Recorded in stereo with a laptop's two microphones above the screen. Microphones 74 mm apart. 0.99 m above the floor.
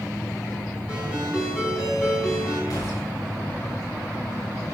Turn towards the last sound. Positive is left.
turn(degrees=50)  # may be behind; listen again after turning